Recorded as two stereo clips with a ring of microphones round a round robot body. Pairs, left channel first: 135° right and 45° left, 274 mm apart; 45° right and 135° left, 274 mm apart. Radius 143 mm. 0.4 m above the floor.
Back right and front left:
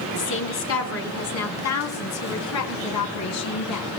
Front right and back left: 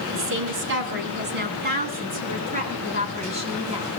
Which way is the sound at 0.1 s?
Straight behind.